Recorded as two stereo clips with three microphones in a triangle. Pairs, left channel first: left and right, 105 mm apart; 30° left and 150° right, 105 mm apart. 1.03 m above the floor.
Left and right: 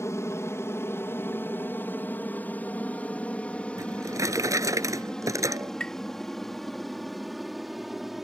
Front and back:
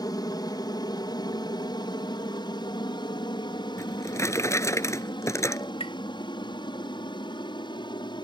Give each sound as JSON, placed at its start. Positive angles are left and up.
{"t": 0.0, "sound": "an aircraft", "azimuth_deg": 45}
{"t": 3.8, "sound": "a drawer", "azimuth_deg": -30}
{"t": 5.8, "sound": "tapping", "azimuth_deg": 10}